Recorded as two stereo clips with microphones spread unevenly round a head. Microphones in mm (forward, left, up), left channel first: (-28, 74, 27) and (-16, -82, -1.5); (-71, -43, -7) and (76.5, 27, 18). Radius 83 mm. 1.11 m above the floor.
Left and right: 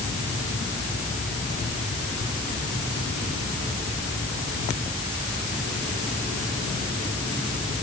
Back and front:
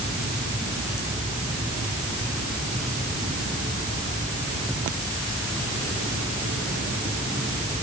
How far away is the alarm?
I don't hear an alarm.